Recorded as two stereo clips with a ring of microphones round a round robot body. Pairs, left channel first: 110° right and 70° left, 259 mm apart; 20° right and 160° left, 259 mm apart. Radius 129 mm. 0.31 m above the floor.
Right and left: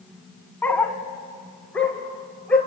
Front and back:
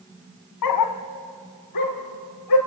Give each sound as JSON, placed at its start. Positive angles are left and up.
{"t": 0.6, "sound": "a dog barking", "azimuth_deg": -30, "distance_m": 1.2}